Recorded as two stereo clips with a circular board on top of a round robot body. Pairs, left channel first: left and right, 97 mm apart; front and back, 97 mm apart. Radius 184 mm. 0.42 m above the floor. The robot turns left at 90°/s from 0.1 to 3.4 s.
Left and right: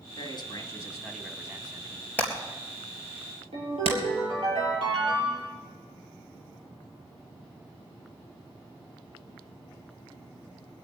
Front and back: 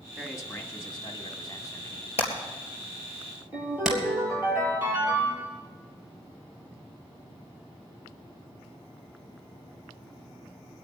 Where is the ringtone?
110° right, 8.5 m.